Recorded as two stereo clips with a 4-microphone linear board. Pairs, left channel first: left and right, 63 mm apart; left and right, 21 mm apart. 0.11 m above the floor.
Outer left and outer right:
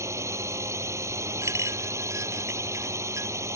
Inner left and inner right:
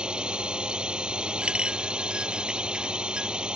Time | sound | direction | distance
0.0 | a drone | 50° right (ahead or behind) | ?
1.4 | a clink | 55° right (ahead or behind) | ?